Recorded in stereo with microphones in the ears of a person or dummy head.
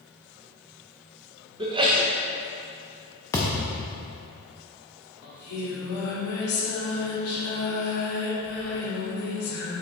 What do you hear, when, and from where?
1.6 s a sneeze: 25° right (ahead or behind), 1.1 m
3.3 s a thud: 10° left (ahead or behind), 0.5 m
5.2 s singing: 80° left, 1.8 m